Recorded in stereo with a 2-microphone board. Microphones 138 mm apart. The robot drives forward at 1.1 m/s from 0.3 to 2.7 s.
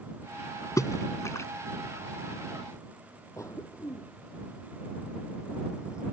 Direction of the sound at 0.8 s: 25° left (ahead or behind).